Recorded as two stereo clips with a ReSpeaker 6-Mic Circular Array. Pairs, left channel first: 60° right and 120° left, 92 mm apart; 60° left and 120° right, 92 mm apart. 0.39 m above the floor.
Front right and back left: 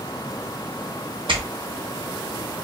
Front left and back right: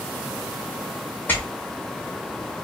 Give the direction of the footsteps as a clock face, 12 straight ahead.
8 o'clock.